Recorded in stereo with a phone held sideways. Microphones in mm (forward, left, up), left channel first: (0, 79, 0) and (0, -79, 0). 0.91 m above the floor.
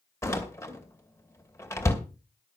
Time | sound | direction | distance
0.2 | a door slam | 15° left (ahead or behind) | 2.5 m